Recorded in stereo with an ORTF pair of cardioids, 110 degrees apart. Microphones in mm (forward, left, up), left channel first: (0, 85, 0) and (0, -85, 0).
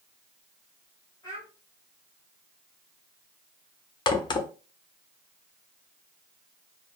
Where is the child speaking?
25° left, 2.0 m.